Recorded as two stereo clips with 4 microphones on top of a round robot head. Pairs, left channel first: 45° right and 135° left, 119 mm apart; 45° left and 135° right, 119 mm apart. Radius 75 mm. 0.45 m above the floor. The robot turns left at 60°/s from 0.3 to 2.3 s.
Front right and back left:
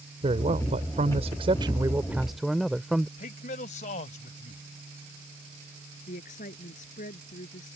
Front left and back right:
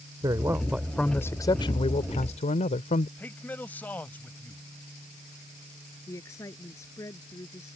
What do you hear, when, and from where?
0.2 s a man speaking: 170° left; by 3.1 s 50° left
3.2 s a man speaking: 35° right
6.1 s a woman speaking: 25° right